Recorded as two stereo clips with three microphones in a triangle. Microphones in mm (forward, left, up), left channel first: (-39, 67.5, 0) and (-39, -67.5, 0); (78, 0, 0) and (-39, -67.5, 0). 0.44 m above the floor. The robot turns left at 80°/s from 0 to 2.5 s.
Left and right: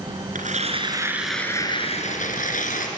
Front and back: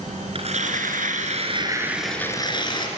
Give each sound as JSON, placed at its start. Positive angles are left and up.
{"t": 0.3, "sound": "tearing paper", "azimuth_deg": -105, "distance_m": 3.0}